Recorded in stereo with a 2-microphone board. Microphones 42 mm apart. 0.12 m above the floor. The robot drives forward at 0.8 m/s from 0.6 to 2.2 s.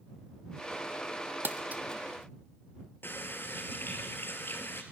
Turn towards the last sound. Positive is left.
turn(degrees=55)  # may be behind; listen again after turning